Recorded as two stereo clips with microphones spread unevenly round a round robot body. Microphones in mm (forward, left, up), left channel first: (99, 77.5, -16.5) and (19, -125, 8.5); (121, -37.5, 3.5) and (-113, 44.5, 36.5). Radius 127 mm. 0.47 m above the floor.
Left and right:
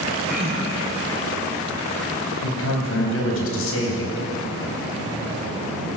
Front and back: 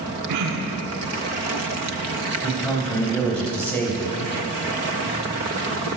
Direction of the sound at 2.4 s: 65° left.